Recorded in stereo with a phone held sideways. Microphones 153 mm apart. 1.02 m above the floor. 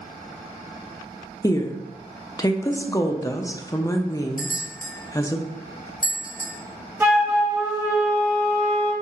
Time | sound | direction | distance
1.4 | a woman speaking | 20° left (ahead or behind) | 0.6 m
4.4 | a bell | 70° left (ahead or behind) | 1.2 m
7.0 | a flute | 15° right (ahead or behind) | 1.1 m